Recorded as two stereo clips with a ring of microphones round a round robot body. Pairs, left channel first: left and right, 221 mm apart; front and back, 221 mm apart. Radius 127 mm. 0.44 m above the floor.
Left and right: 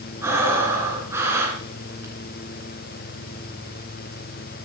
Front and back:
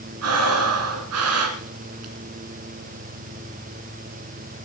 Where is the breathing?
170° right, 2.5 m.